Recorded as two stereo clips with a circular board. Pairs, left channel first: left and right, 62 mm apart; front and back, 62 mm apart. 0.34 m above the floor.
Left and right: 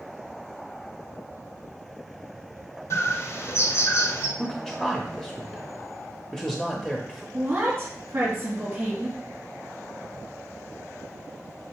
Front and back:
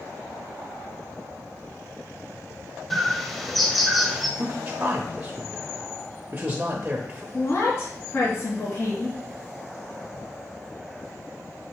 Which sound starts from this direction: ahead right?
A woman speaking, at 7.3 s.